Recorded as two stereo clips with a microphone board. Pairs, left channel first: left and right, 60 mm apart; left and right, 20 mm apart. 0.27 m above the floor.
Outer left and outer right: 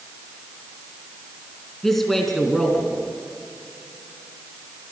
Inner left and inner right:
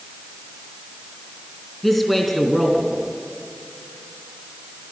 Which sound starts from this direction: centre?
A man speaking, at 1.8 s.